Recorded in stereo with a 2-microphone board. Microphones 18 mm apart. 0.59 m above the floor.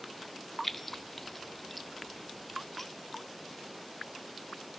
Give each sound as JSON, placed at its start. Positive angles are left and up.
{"t": 0.6, "sound": "keys jangling", "side_deg": 10, "distance_m": 0.5}